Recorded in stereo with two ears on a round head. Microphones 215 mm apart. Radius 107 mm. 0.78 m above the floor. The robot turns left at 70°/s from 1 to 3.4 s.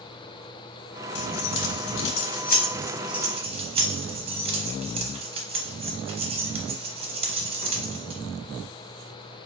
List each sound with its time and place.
1.1 s keys jangling: 45° left (ahead or behind), 0.8 m; by 8.2 s 25° right (ahead or behind), 0.8 m